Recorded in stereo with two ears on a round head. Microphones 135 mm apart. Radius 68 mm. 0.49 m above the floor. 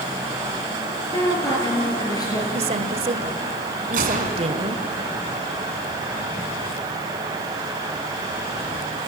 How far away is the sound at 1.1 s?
About 7.5 m.